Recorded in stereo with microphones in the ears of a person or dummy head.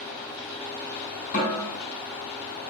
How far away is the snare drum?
About 1.6 m.